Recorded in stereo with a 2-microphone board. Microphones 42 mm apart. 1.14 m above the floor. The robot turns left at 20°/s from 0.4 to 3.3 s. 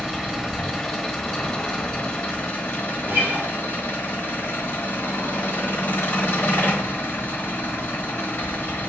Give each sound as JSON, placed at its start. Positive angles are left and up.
{"t": 0.0, "sound": "an engine running", "azimuth_deg": -175, "distance_m": 1.1}
{"t": 3.0, "sound": "a guitar", "side_deg": -55, "distance_m": 1.1}